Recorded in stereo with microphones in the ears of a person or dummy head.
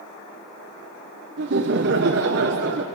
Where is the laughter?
60° right (ahead or behind), 1.0 m.